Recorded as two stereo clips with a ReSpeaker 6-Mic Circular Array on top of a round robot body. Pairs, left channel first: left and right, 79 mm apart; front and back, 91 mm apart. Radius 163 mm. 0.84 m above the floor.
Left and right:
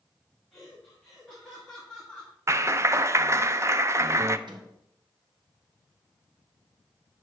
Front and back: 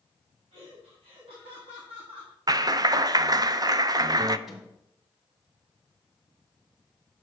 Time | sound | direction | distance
0.5 | laughter | 175° left | 2.5 m
2.5 | a clap | 140° right | 0.5 m
4.5 | a microwave | 95° right | 1.7 m